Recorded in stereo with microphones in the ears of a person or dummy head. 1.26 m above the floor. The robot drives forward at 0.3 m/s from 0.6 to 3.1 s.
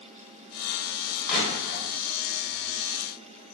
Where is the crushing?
55° left (ahead or behind), 1.3 m; by 1.8 s 60° left (ahead or behind), 1.3 m.